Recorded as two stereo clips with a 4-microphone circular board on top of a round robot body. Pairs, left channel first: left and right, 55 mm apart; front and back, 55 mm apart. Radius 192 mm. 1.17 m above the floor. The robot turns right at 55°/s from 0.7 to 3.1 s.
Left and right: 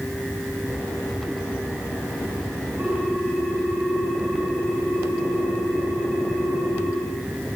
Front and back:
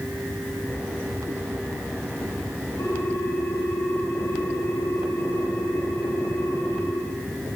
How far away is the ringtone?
About 9 m.